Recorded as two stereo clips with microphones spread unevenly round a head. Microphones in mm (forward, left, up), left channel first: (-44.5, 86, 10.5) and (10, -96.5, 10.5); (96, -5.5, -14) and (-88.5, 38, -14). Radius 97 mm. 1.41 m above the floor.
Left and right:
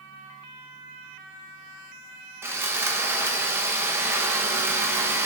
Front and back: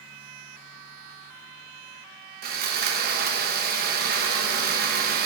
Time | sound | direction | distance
2.4 | sawing | 150° right | 1.1 m